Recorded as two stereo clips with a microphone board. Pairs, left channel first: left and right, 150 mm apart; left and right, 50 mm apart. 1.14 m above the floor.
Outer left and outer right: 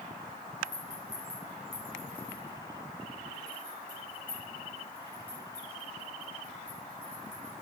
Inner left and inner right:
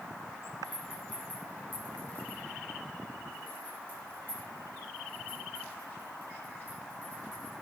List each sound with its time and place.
0.6 s a rattle: 30° left (ahead or behind), 5 m